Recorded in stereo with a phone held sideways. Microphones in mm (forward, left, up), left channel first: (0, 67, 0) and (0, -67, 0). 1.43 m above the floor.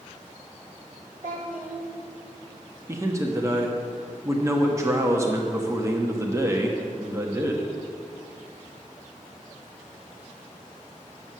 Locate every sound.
1.2 s a child speaking: 80° right, 3 m
2.9 s a man speaking: 20° right (ahead or behind), 1.2 m